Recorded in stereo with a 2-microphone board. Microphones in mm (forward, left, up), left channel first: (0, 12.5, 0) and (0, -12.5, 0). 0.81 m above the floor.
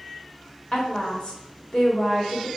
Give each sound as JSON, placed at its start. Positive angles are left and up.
{"t": 0.7, "sound": "a woman speaking", "side_deg": 40, "distance_m": 1.6}